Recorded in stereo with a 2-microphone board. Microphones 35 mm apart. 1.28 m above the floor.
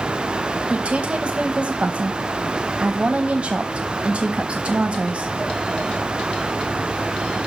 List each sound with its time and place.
0.7 s a woman speaking: 35° right (ahead or behind), 1.0 m